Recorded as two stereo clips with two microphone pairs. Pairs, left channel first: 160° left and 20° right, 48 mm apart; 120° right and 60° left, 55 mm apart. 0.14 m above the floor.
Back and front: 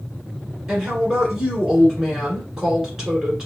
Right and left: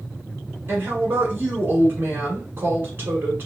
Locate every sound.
0.7 s a woman speaking: 55° left, 1.5 m